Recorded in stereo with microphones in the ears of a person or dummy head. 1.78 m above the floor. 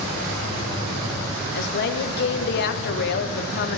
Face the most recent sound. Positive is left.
turn(degrees=60)  # may be behind; listen again after turning